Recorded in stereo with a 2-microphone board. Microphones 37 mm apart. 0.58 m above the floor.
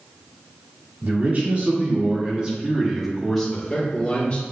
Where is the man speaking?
50° right (ahead or behind), 1.8 m; by 4.4 s 30° left (ahead or behind), 1.4 m.